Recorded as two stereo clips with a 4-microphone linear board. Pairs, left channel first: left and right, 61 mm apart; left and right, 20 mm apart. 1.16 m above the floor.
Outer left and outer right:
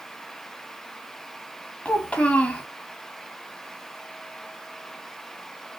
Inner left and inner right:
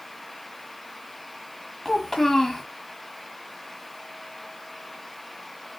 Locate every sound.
1.9 s a child speaking: 20° left (ahead or behind), 1.3 m